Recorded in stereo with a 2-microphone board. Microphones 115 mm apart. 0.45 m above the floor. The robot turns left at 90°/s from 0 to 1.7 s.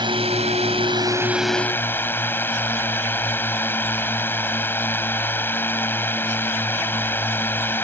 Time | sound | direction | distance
0.0 | a drone | 45° right | ?